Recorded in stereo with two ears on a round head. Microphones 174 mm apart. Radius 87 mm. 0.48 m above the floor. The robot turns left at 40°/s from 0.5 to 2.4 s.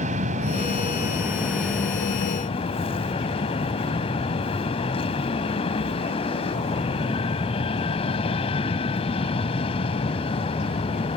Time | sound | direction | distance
0.0 | an aircraft | 135° right | ?